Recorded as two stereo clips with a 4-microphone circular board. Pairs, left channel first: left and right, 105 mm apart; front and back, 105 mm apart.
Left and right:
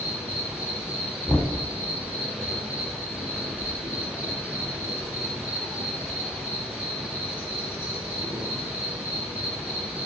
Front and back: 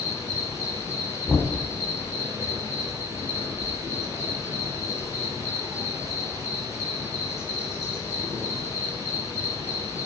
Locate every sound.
0.0 s an insect: 20° right, 1.9 m
1.3 s knocking: 40° left, 0.7 m